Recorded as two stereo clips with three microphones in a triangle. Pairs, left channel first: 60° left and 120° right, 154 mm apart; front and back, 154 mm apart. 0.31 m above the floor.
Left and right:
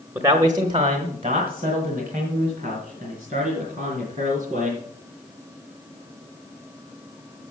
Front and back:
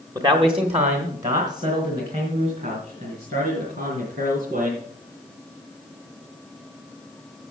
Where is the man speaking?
170° right, 1.0 m; by 4.8 s 160° right, 5.5 m.